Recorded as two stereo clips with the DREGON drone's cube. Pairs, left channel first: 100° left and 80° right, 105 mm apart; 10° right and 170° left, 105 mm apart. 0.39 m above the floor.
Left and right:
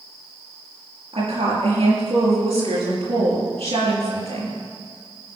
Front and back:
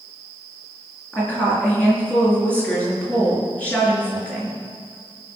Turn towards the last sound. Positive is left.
turn(degrees=-85)